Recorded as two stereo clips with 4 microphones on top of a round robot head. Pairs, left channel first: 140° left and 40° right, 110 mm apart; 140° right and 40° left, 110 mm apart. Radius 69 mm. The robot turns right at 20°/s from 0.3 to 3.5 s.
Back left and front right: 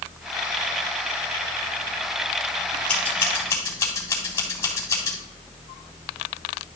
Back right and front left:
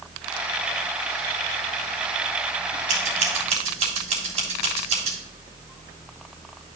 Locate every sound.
2.9 s scissors: 60° left, 3.5 m; by 5.2 s 75° left, 3.5 m